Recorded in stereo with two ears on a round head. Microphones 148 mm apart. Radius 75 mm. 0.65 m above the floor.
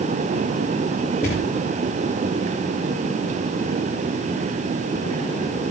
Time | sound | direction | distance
1.2 | a thud | 55° left (ahead or behind) | 5.5 m